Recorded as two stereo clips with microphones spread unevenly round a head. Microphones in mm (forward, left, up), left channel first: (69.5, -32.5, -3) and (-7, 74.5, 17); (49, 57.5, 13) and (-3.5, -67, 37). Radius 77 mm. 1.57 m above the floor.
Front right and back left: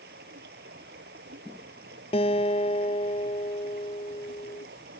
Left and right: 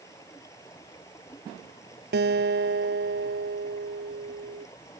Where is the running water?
140° left.